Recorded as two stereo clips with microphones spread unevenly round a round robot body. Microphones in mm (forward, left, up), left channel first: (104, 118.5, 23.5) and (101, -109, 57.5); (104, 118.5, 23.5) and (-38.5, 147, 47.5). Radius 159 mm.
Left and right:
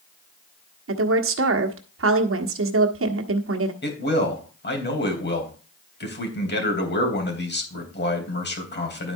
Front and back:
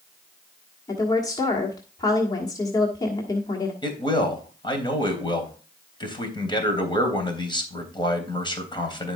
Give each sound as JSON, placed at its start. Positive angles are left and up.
{"t": 0.9, "sound": "a woman speaking", "azimuth_deg": -70, "distance_m": 1.3}
{"t": 3.8, "sound": "a man speaking", "azimuth_deg": 50, "distance_m": 3.5}